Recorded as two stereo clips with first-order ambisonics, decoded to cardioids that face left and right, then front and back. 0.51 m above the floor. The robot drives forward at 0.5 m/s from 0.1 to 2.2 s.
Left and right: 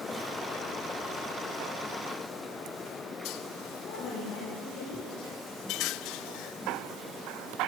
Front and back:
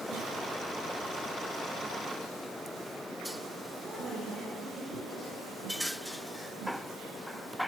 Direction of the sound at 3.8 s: 100° left.